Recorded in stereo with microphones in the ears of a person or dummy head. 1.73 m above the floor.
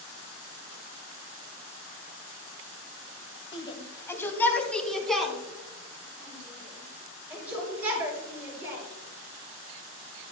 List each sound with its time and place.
3.5 s a shout: 35° left (ahead or behind), 2 m; by 8.8 s 10° right (ahead or behind), 7.5 m